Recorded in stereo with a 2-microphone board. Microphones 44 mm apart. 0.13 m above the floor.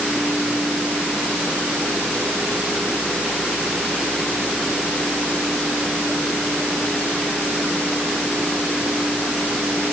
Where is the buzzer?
No buzzer in this recording.